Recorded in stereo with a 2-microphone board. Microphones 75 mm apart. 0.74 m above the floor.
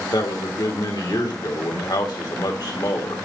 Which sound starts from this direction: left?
A man speaking, at 0.1 s.